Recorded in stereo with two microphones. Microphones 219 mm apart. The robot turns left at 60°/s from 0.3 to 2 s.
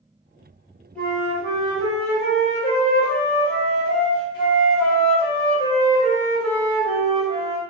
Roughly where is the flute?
Behind.